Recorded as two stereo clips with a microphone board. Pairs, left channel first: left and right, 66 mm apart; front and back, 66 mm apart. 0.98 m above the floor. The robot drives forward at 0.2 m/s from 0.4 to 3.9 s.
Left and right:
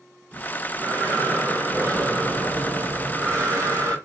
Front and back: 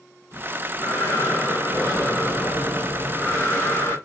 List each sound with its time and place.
0.3 s breathing: 40° right, 1.9 m; by 4.0 s 55° right, 1.5 m